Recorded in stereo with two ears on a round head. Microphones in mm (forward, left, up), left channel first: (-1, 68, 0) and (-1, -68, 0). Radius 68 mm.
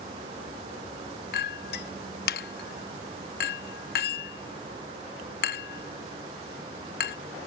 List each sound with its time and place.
1.3 s a clink: 70° left (ahead or behind)